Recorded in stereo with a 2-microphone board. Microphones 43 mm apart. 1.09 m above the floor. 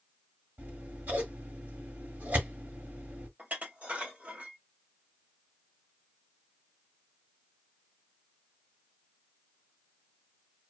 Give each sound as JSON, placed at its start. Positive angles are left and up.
{"t": 0.6, "sound": "scissors", "side_deg": -50, "distance_m": 1.4}
{"t": 3.4, "sound": "dishes clattering", "side_deg": -35, "distance_m": 1.3}